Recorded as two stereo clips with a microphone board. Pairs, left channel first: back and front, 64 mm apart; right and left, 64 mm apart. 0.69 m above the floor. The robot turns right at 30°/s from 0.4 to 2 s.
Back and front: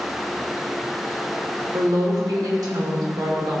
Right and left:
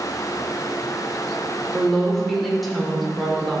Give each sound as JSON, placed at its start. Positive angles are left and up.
{"t": 1.7, "sound": "a woman speaking", "azimuth_deg": -10, "distance_m": 1.9}